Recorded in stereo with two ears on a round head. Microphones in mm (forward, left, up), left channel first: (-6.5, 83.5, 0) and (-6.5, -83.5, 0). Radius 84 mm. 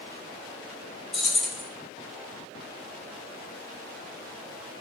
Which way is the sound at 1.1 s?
Centre (ahead or behind).